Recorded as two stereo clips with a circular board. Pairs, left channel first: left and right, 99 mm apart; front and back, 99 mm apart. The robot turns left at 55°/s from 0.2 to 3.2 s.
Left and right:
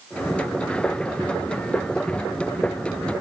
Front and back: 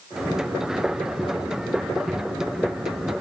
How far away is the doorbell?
I don't hear a doorbell.